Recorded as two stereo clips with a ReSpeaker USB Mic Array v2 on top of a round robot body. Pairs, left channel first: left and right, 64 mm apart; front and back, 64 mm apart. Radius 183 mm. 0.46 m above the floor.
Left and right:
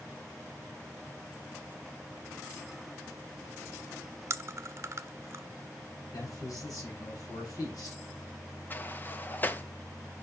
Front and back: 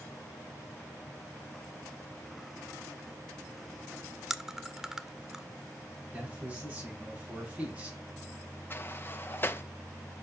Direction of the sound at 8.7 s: 40° left.